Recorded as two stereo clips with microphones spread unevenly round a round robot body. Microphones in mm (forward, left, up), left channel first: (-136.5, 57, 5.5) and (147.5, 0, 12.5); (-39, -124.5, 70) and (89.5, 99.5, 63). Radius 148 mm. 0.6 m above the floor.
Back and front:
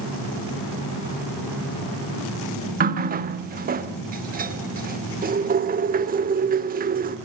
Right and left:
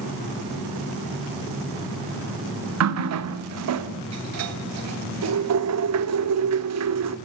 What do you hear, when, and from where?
2.8 s a running tap: 50° left, 1.3 m